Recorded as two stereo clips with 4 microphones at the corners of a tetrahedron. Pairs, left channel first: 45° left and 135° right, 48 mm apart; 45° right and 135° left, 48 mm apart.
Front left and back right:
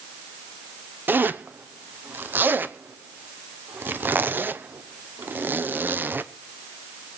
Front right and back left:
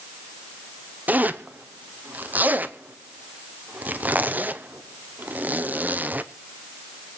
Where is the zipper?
175° right, 0.8 m.